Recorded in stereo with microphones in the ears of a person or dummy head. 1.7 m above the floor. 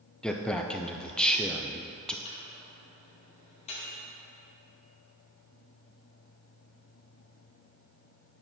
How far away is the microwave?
About 1.9 m.